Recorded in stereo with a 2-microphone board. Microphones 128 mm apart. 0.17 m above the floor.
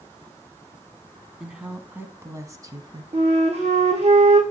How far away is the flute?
About 4 m.